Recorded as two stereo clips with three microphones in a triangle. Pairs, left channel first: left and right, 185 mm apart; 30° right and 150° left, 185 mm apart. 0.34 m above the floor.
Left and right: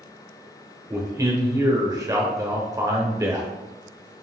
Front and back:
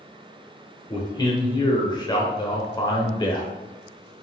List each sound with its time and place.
0.9 s a man speaking: 50° right, 0.9 m